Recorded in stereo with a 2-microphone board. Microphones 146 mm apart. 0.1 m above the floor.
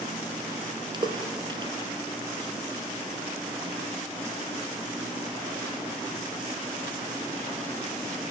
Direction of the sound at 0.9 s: 30° right (ahead or behind).